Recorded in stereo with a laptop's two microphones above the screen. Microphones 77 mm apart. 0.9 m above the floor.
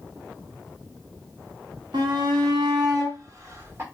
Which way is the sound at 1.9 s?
70° right (ahead or behind).